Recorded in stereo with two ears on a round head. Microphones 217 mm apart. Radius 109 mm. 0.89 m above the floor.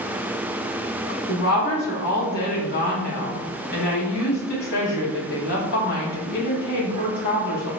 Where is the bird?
I don't hear a bird.